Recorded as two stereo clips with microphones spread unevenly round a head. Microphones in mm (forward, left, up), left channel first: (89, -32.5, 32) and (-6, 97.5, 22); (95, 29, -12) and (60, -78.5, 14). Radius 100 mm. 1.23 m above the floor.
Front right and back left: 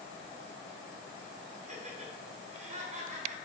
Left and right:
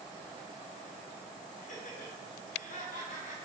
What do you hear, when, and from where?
1.6 s laughter: 80° left, 3 m